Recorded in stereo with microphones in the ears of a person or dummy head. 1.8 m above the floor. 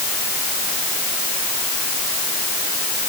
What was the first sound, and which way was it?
Only background noise.